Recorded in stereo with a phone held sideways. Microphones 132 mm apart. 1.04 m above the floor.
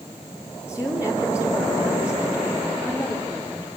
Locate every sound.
0.7 s a woman speaking: 10° right (ahead or behind), 3.5 m